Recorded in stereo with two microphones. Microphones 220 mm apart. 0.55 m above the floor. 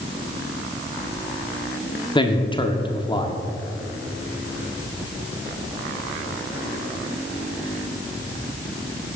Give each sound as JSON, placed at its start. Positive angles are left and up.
{"t": 2.1, "sound": "a man speaking", "side_deg": 20, "distance_m": 0.9}